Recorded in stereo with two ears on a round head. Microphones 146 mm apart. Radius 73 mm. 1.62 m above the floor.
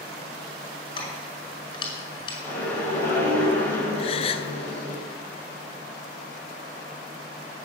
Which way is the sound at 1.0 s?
30° left (ahead or behind).